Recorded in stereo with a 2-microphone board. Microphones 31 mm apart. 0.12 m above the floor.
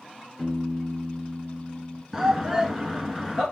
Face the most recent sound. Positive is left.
turn(degrees=-10)  # may be behind; listen again after turning